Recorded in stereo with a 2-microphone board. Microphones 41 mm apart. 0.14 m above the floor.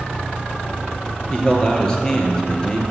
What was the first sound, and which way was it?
A man speaking, 20° left (ahead or behind).